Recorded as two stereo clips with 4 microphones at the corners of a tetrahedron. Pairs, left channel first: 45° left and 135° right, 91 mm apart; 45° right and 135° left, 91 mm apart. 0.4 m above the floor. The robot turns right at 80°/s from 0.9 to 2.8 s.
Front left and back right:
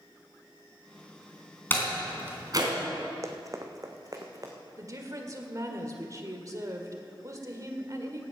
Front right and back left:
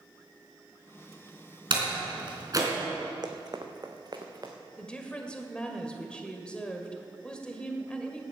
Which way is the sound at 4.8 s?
120° right.